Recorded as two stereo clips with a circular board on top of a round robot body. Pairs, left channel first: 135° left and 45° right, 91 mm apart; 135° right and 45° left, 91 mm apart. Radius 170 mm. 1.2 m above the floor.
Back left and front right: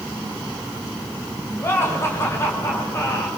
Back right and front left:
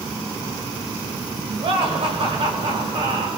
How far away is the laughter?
About 6.5 m.